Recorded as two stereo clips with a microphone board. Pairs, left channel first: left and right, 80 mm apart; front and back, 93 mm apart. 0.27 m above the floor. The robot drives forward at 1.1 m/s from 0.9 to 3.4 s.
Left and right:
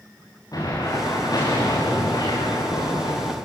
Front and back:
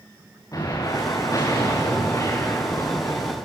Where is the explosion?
50° left, 8 m; by 3.3 s 70° left, 6.5 m.